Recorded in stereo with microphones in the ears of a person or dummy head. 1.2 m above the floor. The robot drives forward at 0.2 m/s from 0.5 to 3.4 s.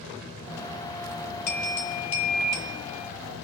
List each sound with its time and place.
1.5 s a bell: 40° left (ahead or behind), 1.2 m; by 3.1 s 35° left (ahead or behind), 1.4 m